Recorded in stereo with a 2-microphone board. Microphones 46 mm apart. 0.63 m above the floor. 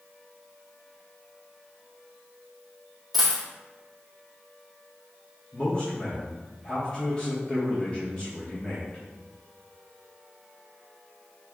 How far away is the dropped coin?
About 1.1 m.